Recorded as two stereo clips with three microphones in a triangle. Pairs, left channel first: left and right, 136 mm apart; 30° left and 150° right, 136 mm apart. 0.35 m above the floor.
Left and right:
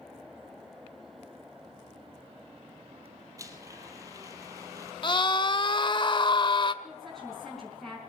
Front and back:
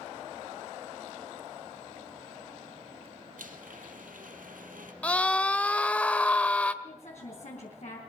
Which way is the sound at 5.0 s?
105° left.